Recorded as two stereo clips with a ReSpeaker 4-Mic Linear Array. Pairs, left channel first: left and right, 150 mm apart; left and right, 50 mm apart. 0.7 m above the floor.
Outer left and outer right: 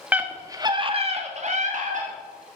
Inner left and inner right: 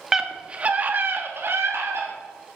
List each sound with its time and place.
0.1 s a scream: 10° right (ahead or behind), 1.4 m; by 2.1 s 55° right (ahead or behind), 1.9 m